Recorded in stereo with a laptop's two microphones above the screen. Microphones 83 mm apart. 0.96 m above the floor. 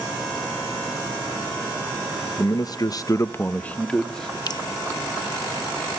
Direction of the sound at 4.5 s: 50° left (ahead or behind).